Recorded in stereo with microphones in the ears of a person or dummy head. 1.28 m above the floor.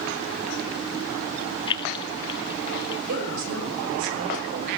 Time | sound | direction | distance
1.7 | keys jangling | 25° left (ahead or behind) | 0.5 m
3.1 | a woman speaking | 70° right (ahead or behind) | 5.5 m